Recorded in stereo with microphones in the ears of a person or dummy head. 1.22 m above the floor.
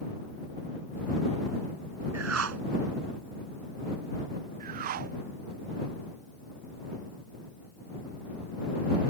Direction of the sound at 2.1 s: 75° right (ahead or behind).